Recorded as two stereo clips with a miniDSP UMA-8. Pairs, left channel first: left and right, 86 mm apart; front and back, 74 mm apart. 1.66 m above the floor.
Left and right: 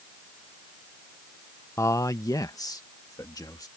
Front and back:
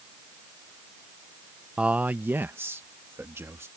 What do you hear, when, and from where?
1.8 s a man speaking: 115° left; by 3.7 s 130° left